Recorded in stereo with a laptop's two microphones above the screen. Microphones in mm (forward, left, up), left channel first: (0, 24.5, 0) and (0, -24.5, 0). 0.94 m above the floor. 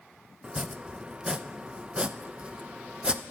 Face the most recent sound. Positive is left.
turn(degrees=-20)  # may be behind; listen again after turning